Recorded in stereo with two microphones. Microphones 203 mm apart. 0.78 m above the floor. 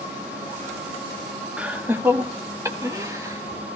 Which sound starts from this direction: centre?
Laughter, at 1.6 s.